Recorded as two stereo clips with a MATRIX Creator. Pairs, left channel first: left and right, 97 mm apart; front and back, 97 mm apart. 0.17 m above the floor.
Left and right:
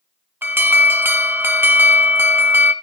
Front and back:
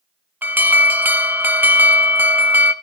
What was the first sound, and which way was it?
An alarm, 130° right.